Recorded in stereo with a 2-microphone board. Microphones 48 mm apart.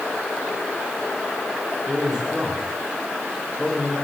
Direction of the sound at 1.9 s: 20° right (ahead or behind).